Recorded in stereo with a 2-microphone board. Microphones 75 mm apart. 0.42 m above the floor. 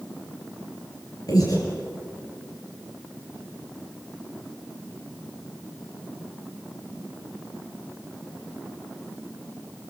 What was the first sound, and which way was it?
Breathing, 60° left (ahead or behind).